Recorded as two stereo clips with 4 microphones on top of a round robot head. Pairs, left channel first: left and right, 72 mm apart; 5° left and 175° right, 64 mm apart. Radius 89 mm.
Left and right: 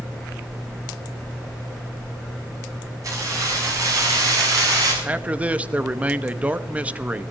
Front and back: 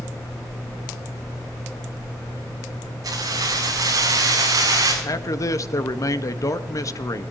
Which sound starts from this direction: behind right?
Keys jangling, at 3.0 s.